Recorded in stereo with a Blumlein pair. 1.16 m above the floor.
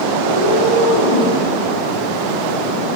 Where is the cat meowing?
65° left, 2 m; by 1.4 s 50° left, 2.5 m.